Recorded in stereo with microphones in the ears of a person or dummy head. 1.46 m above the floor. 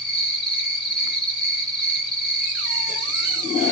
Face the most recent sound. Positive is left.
turn(degrees=0)  # may be behind; listen again after turning